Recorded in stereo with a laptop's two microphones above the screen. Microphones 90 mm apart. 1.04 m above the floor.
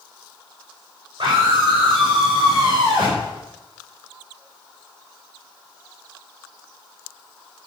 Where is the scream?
60° right (ahead or behind), 5.5 m.